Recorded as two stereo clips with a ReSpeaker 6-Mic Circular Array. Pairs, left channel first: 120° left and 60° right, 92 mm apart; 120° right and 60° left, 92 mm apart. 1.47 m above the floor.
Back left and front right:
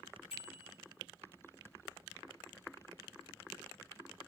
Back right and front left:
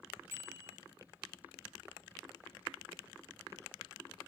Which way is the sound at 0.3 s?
125° left.